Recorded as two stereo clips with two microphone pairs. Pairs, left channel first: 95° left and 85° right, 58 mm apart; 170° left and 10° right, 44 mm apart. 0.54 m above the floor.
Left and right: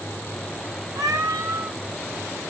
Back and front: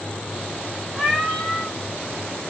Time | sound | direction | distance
0.9 | a cat meowing | 105° right | 1.8 m